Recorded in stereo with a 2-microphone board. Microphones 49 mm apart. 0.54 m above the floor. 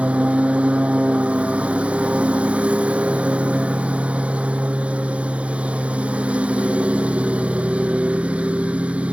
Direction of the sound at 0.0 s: 25° right (ahead or behind).